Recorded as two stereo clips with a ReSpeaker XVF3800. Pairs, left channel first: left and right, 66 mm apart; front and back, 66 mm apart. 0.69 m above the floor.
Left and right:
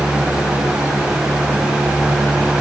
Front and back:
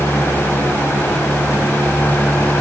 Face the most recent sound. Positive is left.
No sound to turn to.